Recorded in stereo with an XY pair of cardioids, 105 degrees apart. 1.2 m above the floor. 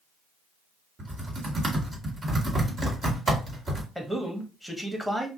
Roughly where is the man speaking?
Ahead.